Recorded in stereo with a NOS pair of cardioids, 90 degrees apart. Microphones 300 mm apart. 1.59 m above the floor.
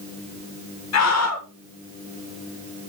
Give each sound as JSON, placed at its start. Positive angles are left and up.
{"t": 0.9, "sound": "a scream", "azimuth_deg": 55, "distance_m": 1.9}